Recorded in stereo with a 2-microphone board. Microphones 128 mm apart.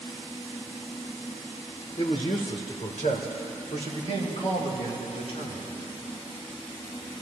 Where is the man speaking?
60° left (ahead or behind), 2 m; by 5.7 s 45° left (ahead or behind), 4.5 m.